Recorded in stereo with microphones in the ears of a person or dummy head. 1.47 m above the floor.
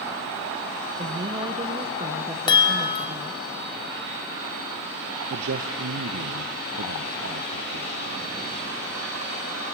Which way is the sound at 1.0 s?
25° right (ahead or behind).